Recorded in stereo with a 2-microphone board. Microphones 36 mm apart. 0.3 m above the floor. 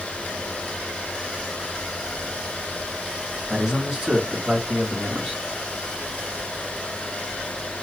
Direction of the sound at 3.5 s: 25° right (ahead or behind).